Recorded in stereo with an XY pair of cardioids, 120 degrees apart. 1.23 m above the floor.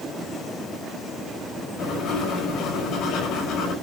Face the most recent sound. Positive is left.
turn(degrees=65)